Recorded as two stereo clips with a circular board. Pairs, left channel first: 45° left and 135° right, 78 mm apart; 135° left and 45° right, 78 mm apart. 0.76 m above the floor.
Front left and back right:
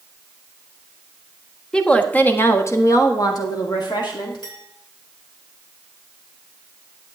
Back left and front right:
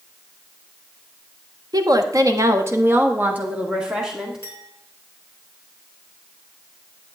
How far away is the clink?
About 5.5 m.